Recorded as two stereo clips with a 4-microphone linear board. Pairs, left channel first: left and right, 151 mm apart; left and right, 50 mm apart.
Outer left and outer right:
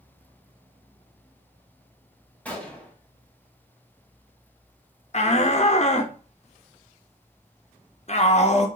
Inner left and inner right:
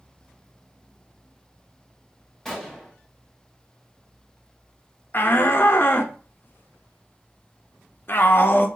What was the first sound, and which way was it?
A gunshot, 10° left (ahead or behind).